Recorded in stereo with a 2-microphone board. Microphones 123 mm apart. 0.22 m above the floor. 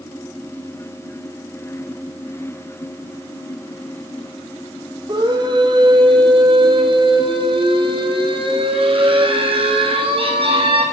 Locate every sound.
5.1 s a scream: 35° right (ahead or behind), 6 m; by 10.8 s 50° right (ahead or behind), 10 m